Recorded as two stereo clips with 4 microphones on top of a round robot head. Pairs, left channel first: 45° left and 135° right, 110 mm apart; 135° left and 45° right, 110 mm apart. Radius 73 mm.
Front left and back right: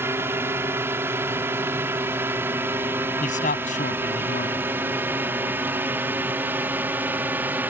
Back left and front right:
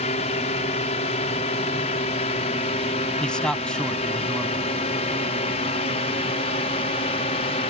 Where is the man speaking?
55° left.